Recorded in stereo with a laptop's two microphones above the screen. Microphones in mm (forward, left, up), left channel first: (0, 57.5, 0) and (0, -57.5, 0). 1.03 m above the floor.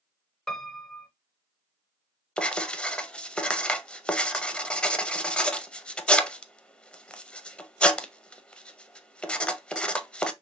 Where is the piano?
5° left (ahead or behind), 0.8 m.